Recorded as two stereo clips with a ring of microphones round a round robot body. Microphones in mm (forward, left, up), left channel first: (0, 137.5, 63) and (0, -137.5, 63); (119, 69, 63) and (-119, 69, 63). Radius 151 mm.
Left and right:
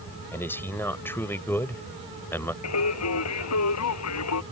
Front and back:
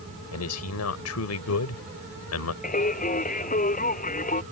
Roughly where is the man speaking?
Ahead.